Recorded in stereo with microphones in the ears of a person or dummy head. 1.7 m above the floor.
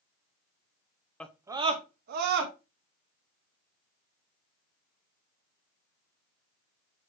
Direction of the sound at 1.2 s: 15° left (ahead or behind).